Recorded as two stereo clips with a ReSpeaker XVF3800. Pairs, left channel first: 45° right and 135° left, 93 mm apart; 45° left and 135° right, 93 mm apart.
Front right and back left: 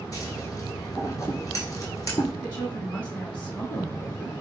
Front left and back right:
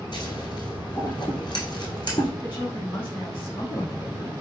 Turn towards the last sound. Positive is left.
turn(degrees=30)